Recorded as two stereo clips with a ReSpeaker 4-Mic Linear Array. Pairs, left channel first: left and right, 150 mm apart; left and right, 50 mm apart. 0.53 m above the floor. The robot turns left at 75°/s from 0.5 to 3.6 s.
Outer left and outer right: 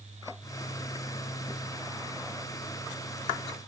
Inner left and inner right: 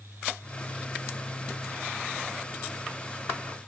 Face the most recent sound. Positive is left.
No sound to turn to.